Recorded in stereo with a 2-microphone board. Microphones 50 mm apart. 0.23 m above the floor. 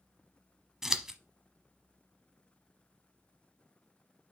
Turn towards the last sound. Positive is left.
turn(degrees=-10)  # may be behind; listen again after turning